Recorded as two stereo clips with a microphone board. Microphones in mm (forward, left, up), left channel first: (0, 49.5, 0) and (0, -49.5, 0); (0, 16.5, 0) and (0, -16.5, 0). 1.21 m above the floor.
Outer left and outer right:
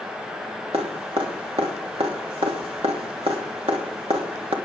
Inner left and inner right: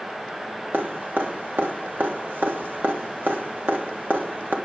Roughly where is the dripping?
Right.